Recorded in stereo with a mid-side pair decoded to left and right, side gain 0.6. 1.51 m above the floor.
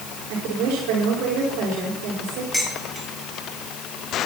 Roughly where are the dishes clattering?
Ahead.